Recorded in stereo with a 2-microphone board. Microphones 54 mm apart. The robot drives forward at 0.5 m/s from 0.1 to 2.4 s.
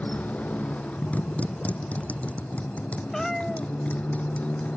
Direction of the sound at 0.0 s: 25° left (ahead or behind).